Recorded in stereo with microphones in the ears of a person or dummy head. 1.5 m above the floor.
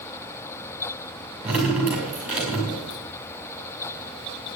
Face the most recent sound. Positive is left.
turn(degrees=-5)  # may be behind; listen again after turning